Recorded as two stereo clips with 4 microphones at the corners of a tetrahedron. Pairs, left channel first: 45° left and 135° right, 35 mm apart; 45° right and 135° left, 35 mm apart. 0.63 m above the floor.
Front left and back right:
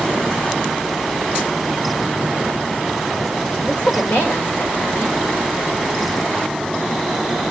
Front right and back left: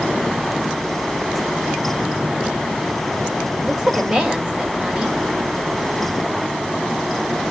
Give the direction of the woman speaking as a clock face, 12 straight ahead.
10 o'clock.